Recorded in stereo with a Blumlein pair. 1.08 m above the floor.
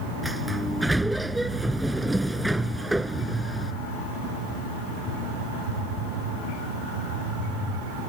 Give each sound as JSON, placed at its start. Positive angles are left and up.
{"t": 0.2, "sound": "a sliding door", "azimuth_deg": -5}